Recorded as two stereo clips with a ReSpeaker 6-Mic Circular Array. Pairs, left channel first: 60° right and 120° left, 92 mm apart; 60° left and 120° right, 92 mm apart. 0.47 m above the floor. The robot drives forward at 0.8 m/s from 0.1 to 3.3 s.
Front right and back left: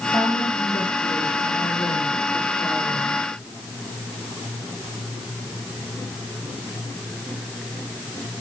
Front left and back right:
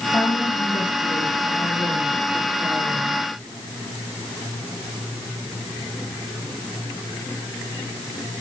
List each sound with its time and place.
0.1 s a woman speaking: 45° left, 7 m; by 3.2 s 65° left, 6 m